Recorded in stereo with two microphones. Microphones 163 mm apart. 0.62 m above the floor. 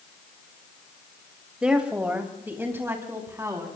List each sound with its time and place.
1.6 s a woman speaking: 5° right (ahead or behind), 2.5 m; by 3.7 s 15° right (ahead or behind), 4.5 m